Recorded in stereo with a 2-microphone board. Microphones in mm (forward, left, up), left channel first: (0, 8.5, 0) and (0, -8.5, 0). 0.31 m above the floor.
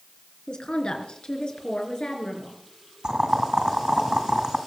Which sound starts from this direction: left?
A woman speaking, at 0.5 s.